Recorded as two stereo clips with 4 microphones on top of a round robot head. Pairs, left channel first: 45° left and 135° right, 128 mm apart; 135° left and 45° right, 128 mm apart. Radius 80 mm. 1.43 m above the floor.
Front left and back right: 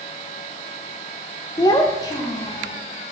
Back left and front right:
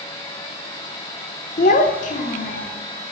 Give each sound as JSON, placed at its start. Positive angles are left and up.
{"t": 1.6, "sound": "a child speaking", "azimuth_deg": 110, "distance_m": 0.7}